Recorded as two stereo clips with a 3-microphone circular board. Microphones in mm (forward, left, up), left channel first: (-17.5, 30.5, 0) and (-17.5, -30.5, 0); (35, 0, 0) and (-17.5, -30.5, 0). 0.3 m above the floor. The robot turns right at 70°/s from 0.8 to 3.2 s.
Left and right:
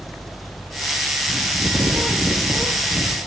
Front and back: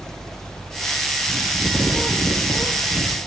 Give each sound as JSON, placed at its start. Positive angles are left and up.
{"t": 1.3, "sound": "a bird", "azimuth_deg": -115, "distance_m": 7.0}